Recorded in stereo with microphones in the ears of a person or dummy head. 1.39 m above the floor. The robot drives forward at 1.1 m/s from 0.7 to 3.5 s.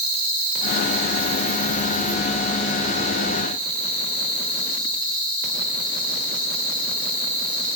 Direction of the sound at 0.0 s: 75° right (ahead or behind).